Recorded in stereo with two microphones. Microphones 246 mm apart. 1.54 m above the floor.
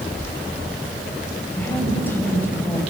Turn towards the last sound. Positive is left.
turn(degrees=10)  # may be behind; listen again after turning